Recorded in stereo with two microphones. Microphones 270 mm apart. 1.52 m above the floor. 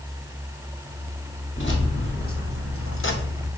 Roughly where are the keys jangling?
Left.